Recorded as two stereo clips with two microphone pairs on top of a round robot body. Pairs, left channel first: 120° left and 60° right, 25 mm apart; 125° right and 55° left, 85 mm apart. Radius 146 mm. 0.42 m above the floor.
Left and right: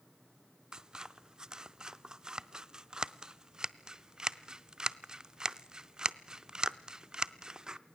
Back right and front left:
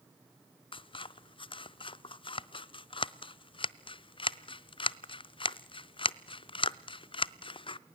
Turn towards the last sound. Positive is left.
turn(degrees=-130)